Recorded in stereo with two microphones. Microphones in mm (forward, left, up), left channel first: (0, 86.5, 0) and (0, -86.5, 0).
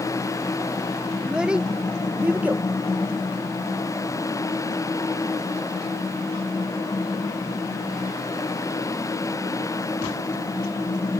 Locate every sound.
1.2 s a child speaking: 5° right (ahead or behind); by 2.6 s 10° right (ahead or behind)